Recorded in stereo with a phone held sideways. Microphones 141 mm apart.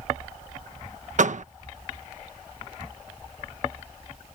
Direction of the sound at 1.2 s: 60° right (ahead or behind).